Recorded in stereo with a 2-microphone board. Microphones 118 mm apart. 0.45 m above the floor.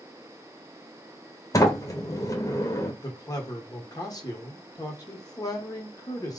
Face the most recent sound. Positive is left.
turn(degrees=30)  # may be behind; listen again after turning